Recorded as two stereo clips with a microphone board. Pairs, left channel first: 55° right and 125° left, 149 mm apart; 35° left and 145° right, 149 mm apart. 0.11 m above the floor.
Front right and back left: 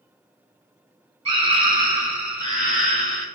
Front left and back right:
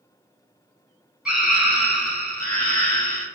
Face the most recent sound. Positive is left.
turn(degrees=15)